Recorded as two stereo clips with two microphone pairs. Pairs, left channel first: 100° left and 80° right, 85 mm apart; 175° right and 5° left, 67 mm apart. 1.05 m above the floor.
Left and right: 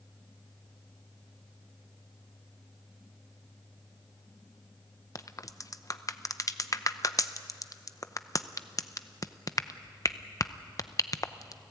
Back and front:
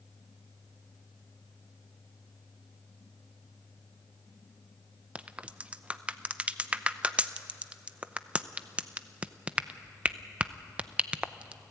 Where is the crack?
70° left, 0.6 m.